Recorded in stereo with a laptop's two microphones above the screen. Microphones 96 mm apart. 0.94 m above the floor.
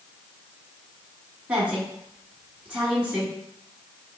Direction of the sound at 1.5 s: 15° right (ahead or behind).